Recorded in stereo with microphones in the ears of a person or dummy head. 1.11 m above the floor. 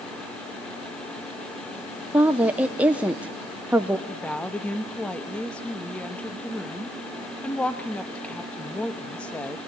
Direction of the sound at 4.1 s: Centre (ahead or behind).